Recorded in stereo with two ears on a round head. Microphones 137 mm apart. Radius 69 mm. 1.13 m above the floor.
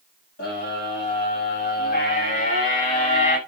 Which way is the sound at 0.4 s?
70° left (ahead or behind).